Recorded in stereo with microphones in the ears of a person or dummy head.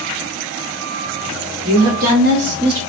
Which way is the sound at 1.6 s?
65° right (ahead or behind).